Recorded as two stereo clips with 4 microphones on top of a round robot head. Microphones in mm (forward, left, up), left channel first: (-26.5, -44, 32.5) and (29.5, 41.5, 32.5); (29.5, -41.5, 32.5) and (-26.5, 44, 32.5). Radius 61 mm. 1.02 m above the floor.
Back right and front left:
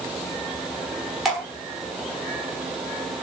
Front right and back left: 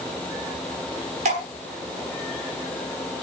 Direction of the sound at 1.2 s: 145° left.